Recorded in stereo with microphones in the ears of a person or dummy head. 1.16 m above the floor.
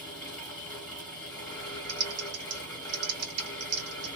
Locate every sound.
0.0 s a fan: 10° left (ahead or behind), 1.7 m
1.9 s typing on a keyboard: 70° right (ahead or behind), 1.6 m